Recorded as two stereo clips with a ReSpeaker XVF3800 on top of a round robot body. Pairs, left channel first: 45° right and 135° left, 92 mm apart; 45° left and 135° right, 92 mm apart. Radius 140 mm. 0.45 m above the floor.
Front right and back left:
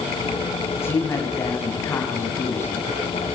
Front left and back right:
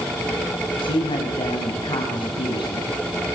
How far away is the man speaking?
About 5 m.